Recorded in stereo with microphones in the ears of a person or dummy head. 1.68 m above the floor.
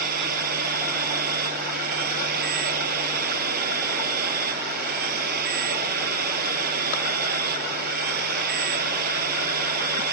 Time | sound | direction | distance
0.0 | a machine running | 60° right (ahead or behind) | ?